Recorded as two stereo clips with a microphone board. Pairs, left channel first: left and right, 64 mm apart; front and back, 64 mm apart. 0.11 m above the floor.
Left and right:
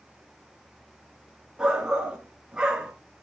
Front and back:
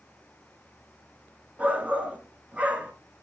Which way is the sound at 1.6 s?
145° right.